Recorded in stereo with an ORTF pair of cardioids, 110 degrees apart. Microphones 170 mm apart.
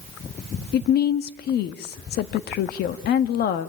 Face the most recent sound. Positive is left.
turn(degrees=70)